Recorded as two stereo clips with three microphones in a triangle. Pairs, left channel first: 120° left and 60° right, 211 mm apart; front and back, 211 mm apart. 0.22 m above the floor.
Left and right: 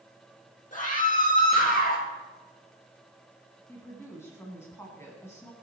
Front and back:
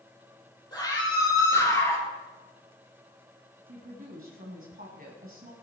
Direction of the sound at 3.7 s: 170° right.